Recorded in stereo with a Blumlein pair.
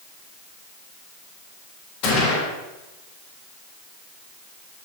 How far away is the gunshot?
About 3.5 m.